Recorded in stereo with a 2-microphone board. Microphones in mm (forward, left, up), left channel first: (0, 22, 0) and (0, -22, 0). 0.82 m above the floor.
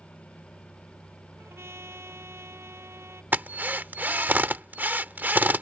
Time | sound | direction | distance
1.4 | a trumpet | 90° right | ?
3.3 | a drill | 50° right (ahead or behind) | ?